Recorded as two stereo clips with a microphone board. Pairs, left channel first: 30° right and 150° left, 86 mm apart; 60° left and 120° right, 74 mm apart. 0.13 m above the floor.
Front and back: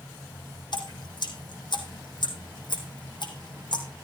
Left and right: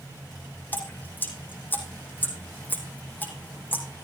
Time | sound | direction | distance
0.7 | dripping | 5° right | 3 m